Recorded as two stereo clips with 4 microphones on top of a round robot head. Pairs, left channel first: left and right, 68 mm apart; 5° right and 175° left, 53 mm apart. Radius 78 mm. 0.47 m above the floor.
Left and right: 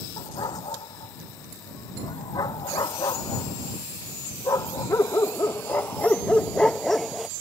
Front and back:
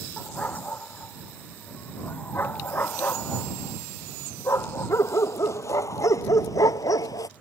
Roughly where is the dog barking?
Ahead left.